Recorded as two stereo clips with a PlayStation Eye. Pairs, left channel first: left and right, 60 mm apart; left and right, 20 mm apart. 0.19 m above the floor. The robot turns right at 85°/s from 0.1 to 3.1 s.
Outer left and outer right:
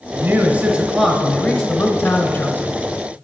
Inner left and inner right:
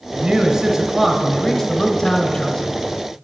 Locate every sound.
0.1 s a man speaking: 120° right, 1.4 m; by 2.7 s 105° left, 1.4 m